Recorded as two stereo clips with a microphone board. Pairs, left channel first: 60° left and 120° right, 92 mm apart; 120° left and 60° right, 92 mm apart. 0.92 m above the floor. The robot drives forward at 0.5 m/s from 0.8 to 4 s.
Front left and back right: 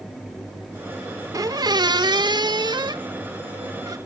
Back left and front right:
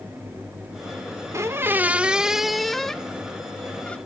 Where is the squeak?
100° right, 0.6 m; by 4.0 s 165° right, 1.5 m.